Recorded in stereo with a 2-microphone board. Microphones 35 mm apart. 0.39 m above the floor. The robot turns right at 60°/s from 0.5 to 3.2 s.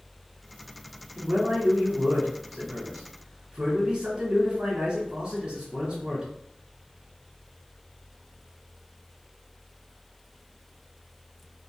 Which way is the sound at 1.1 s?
155° right.